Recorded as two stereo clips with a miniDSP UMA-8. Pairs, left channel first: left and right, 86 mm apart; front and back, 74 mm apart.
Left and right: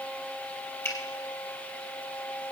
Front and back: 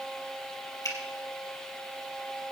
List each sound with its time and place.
0.8 s a finger snap: 35° left, 3.5 m